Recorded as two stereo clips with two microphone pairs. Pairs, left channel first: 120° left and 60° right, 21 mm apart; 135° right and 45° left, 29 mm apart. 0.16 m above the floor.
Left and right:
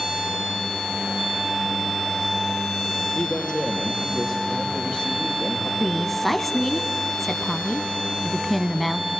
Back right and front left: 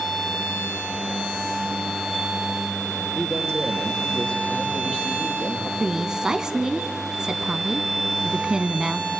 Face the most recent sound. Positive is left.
turn(degrees=50)